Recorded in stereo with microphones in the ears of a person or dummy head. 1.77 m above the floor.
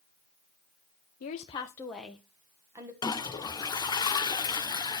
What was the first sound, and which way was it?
A woman speaking, 50° left (ahead or behind).